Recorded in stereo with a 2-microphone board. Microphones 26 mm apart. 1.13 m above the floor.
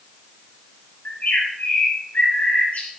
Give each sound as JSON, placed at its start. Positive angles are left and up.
{"t": 1.1, "sound": "a bird", "side_deg": 75, "distance_m": 4.0}